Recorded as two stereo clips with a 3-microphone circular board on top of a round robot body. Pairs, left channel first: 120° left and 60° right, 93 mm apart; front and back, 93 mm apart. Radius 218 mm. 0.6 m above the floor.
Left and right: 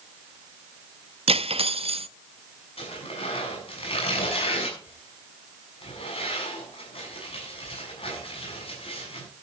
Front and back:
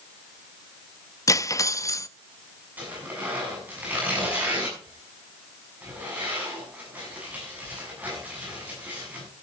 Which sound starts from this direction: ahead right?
Cutlery clinking, at 1.3 s.